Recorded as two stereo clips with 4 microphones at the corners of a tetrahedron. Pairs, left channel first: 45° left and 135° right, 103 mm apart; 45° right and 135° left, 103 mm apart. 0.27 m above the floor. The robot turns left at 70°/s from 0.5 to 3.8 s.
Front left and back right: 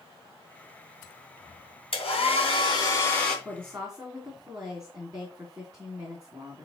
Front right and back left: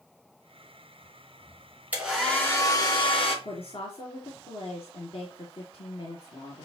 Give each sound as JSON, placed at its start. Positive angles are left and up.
{"t": 1.9, "sound": "a hair dryer", "azimuth_deg": 60, "distance_m": 3.0}
{"t": 3.5, "sound": "a woman speaking", "azimuth_deg": -55, "distance_m": 2.5}